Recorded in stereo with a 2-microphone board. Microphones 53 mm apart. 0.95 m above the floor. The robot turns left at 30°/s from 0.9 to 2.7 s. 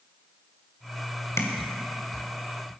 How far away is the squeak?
I don't hear a squeak.